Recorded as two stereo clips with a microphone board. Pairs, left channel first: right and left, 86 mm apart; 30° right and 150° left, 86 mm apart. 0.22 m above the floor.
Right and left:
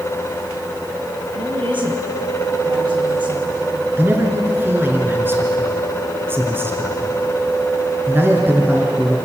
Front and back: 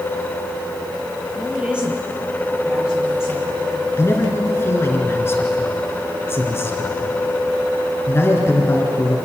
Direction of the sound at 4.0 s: 30° left.